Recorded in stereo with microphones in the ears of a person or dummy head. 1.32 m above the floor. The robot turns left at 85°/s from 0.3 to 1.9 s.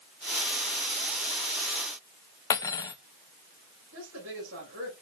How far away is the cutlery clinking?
About 0.6 m.